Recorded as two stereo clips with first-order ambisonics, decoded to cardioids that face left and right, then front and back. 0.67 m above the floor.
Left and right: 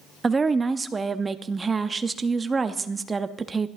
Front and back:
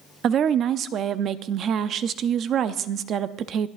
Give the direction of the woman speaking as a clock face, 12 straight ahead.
5 o'clock.